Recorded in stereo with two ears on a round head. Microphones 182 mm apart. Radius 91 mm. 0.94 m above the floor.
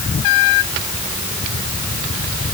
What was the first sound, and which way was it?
Only background noise.